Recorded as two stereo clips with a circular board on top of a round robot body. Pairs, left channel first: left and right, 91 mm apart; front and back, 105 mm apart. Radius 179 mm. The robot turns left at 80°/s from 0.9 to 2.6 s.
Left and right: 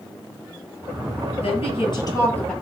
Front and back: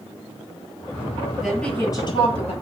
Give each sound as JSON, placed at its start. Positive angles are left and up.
{"t": 1.4, "sound": "a woman speaking", "azimuth_deg": 95, "distance_m": 9.0}